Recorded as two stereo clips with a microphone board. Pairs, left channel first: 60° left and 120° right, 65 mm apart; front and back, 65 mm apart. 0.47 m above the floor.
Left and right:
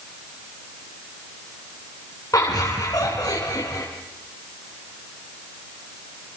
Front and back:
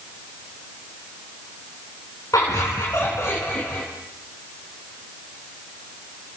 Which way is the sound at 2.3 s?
30° left.